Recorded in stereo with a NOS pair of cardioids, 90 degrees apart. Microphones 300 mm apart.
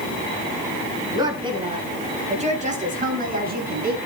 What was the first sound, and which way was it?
A woman speaking, 15° right.